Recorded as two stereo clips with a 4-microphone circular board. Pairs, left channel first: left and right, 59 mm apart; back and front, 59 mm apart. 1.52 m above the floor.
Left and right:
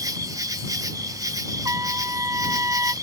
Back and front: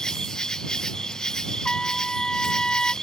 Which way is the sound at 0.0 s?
100° right.